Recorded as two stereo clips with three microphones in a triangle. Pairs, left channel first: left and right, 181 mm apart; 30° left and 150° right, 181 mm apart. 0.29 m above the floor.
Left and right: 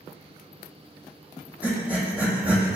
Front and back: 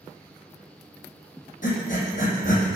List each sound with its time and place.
1.6 s breathing: 10° right, 2 m